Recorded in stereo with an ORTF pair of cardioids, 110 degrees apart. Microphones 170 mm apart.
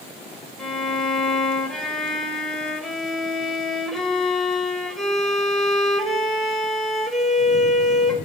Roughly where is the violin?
Ahead.